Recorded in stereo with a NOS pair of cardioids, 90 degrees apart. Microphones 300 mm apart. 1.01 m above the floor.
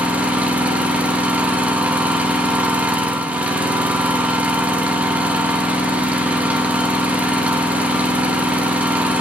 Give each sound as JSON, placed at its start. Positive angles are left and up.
{"t": 0.0, "sound": "an engine running", "azimuth_deg": -5, "distance_m": 0.8}